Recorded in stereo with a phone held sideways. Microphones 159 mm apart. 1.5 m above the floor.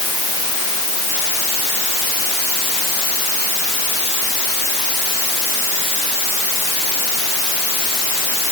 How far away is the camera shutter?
I don't hear a camera shutter.